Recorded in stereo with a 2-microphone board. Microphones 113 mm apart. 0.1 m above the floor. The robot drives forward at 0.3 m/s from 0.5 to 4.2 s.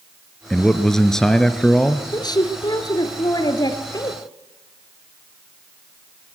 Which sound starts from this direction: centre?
A man speaking, at 0.5 s.